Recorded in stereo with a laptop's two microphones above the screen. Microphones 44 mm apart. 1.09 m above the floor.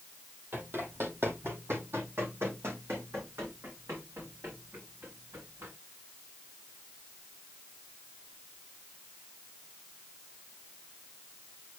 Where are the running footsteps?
55° right (ahead or behind), 2 m; by 5.7 s 80° right, 5.5 m.